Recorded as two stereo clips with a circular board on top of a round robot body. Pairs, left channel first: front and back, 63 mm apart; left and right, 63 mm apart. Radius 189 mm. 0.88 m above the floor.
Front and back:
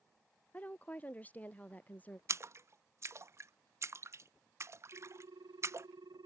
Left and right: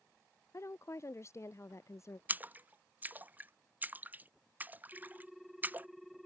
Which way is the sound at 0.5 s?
65° left.